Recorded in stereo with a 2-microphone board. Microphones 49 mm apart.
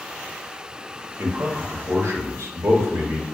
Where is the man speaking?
65° right (ahead or behind), 0.6 m.